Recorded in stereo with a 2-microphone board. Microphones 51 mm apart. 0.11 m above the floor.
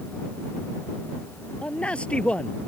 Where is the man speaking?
20° left (ahead or behind).